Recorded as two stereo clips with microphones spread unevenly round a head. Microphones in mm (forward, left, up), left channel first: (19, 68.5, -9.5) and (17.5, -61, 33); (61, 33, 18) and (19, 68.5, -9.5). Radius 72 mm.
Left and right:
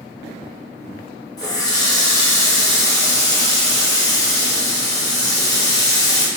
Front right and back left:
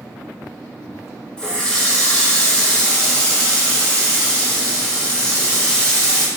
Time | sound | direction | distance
1.4 | a running tap | 20° left | 0.9 m